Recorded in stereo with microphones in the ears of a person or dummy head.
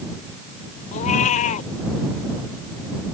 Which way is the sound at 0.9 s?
45° left (ahead or behind).